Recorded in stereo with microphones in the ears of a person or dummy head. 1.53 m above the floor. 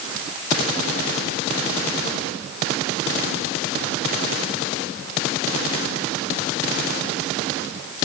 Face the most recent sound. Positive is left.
No sound to turn to.